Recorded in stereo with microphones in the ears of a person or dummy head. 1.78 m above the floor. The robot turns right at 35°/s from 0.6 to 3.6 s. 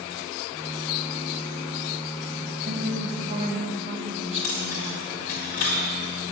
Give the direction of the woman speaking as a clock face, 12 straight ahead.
2 o'clock.